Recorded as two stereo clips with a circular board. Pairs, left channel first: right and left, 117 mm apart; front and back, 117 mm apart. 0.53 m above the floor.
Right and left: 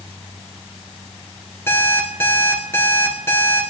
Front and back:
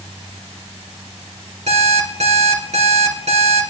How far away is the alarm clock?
About 3.5 m.